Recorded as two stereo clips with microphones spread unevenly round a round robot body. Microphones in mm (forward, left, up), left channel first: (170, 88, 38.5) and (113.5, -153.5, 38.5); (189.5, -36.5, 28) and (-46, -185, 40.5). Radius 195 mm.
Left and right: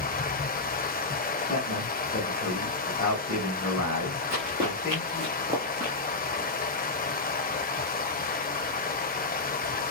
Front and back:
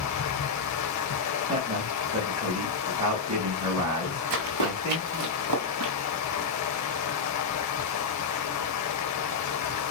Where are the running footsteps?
170° right, 2 m; by 5.9 s 165° left, 1.0 m.